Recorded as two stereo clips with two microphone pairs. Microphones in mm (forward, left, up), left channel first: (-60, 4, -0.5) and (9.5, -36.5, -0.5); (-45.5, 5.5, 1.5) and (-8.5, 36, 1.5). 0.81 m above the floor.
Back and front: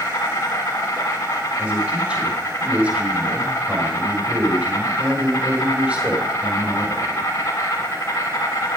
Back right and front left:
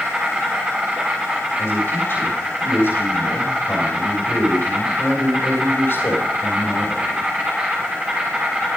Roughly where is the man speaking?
Right.